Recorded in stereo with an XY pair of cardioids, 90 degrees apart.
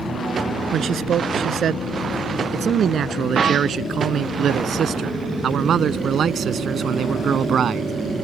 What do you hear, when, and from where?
0.7 s a man speaking: 65° right; by 7.9 s 60° right